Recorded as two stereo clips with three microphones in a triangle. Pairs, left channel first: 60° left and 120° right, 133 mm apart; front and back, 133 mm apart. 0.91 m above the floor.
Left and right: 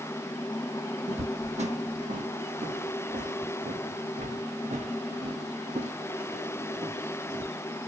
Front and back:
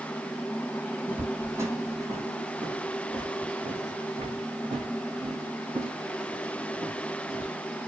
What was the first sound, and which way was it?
Footsteps, 105° right.